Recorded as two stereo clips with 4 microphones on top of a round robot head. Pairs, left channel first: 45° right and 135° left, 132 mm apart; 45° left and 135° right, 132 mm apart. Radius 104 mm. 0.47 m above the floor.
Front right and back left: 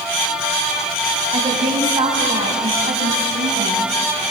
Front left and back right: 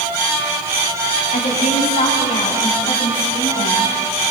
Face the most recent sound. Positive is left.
turn(degrees=100)